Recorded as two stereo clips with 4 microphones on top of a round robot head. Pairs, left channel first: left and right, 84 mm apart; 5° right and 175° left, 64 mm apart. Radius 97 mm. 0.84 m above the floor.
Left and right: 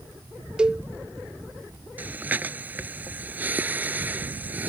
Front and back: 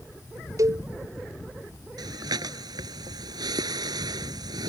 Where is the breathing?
160° right.